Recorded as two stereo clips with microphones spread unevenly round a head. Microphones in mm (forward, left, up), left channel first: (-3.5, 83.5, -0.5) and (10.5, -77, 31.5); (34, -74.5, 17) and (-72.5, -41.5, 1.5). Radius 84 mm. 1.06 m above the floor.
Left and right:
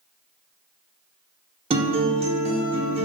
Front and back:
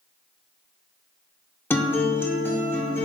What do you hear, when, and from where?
1.7 s a guitar: 70° right, 0.8 m